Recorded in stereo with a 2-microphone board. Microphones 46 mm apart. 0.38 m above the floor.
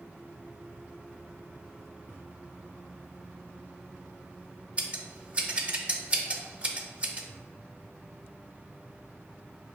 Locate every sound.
4.8 s scissors: 25° right (ahead or behind), 0.5 m